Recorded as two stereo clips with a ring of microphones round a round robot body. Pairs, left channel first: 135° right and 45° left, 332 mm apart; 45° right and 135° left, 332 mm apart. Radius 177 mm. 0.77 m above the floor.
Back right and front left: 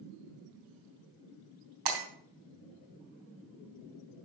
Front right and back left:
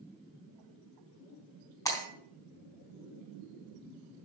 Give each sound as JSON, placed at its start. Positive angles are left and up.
{"t": 1.9, "sound": "breaking glass", "azimuth_deg": 35, "distance_m": 4.0}